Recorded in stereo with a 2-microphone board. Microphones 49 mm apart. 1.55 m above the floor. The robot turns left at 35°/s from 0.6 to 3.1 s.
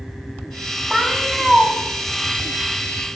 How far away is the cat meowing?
About 2 m.